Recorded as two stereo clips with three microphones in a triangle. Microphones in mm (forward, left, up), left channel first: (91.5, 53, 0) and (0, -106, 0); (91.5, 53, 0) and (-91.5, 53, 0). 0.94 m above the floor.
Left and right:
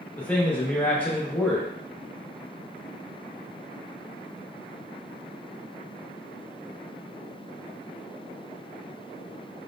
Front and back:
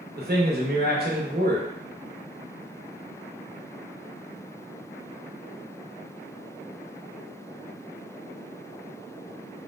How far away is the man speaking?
About 0.8 m.